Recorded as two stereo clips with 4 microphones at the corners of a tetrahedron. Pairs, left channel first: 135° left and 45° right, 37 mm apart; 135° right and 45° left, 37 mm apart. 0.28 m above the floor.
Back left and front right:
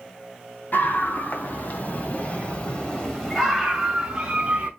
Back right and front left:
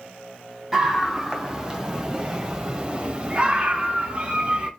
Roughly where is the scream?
Behind left.